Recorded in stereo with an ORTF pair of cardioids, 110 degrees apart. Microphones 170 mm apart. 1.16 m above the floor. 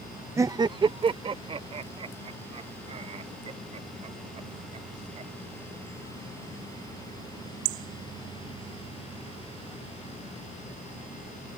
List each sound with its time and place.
0.4 s laughter: 15° right; by 6.6 s 40° right